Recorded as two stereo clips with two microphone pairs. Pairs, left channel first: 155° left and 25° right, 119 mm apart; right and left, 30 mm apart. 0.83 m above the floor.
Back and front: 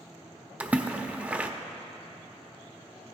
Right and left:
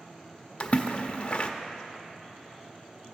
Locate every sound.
0.6 s a splash: 95° right, 0.5 m